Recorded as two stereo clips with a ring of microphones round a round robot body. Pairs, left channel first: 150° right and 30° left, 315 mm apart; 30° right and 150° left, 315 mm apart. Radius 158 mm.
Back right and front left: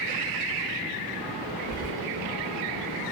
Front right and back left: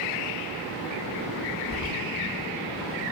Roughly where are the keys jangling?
Ahead.